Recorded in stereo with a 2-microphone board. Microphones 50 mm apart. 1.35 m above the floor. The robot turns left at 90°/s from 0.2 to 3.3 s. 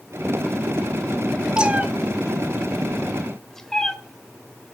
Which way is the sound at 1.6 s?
20° right (ahead or behind).